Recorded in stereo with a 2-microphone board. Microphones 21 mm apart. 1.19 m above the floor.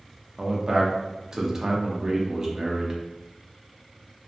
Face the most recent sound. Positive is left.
turn(degrees=-25)  # may be behind; listen again after turning